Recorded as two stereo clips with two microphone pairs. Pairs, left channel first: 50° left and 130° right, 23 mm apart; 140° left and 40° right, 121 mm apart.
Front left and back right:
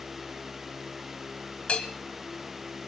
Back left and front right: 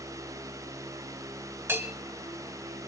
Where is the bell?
25° left, 1.9 m.